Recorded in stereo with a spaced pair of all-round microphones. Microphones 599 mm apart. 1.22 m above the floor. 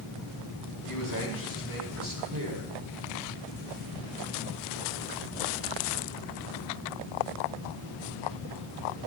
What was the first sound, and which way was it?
A man speaking, 35° right (ahead or behind).